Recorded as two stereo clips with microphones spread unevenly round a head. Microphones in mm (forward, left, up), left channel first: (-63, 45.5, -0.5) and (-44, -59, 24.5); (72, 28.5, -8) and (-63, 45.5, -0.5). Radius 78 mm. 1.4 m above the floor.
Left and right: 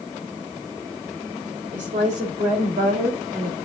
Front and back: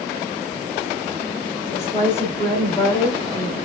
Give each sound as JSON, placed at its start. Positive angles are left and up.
{"t": 1.7, "sound": "a woman speaking", "azimuth_deg": -80, "distance_m": 4.5}